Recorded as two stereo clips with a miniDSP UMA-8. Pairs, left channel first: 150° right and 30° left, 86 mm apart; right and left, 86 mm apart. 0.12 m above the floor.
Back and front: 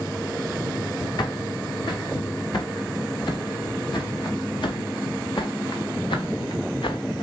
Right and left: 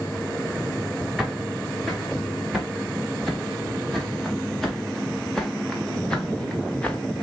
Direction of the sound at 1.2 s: 175° left.